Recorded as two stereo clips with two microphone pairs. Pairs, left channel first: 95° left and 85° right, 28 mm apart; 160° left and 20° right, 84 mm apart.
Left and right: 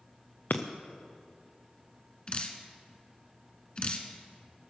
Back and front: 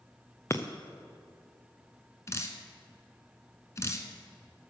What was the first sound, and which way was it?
Breaking glass, 100° left.